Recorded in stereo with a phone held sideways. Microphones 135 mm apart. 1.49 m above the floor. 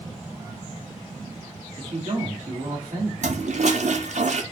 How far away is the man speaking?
About 2.0 m.